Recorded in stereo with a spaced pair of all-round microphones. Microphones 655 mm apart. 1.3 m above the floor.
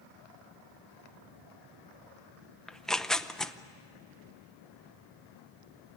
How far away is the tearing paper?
About 0.6 m.